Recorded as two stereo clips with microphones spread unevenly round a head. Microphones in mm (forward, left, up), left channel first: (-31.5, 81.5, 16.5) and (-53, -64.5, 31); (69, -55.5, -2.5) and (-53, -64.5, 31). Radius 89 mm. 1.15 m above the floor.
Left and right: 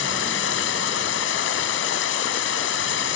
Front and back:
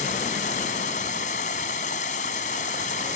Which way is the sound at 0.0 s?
65° left.